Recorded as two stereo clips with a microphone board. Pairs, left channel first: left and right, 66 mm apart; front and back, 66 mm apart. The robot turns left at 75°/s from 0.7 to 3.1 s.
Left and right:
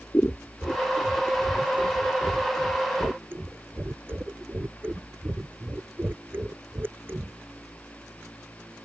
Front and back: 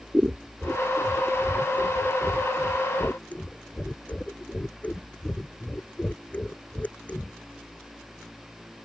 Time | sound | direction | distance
0.1 | scissors | 125° left | ?